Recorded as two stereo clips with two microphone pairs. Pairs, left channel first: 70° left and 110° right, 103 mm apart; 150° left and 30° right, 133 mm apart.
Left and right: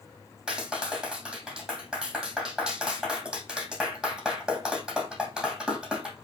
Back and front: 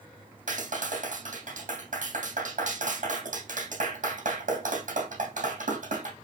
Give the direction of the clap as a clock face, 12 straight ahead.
1 o'clock.